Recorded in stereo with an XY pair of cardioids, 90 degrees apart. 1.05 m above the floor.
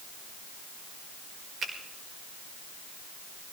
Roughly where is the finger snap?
Ahead right.